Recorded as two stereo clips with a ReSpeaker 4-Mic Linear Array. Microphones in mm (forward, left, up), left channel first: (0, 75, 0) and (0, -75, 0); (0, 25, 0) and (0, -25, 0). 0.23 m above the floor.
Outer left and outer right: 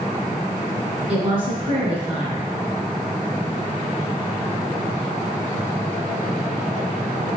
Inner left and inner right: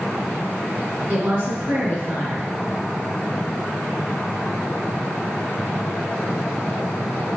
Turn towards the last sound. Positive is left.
turn(degrees=-40)  # may be behind; listen again after turning